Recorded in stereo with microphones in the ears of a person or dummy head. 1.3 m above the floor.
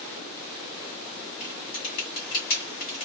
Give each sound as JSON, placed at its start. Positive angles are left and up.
{"t": 1.4, "sound": "typing on a keyboard", "side_deg": 50, "distance_m": 1.5}